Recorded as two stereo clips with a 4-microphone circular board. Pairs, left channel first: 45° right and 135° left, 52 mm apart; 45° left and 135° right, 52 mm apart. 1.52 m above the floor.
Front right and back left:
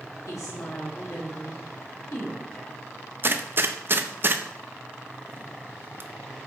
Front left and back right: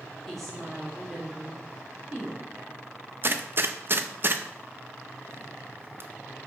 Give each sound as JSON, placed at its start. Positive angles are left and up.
{"t": 0.3, "sound": "a woman speaking", "azimuth_deg": -40, "distance_m": 3.5}
{"t": 3.2, "sound": "a gunshot", "azimuth_deg": 180, "distance_m": 0.6}